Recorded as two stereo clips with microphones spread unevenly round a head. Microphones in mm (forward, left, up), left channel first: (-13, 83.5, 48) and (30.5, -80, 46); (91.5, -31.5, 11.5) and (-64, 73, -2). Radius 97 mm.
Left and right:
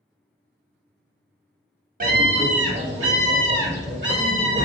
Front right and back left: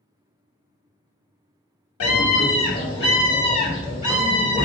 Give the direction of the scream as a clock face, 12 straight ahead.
1 o'clock.